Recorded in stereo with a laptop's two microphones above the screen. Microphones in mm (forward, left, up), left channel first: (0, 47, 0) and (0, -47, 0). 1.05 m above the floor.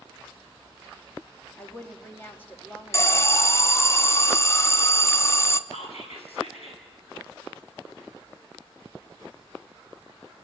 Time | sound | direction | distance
1.6 | a woman speaking | 20° left (ahead or behind) | 1.6 m
2.9 | an alarm | 25° left (ahead or behind) | 0.7 m
5.7 | whispering | 80° left | 7.5 m